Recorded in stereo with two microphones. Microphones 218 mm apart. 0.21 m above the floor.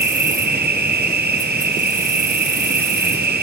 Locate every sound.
0.0 s an insect: 50° right (ahead or behind), 1.3 m